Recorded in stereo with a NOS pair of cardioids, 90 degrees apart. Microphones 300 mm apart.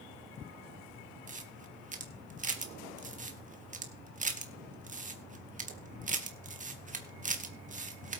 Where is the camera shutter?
25° right, 2 m.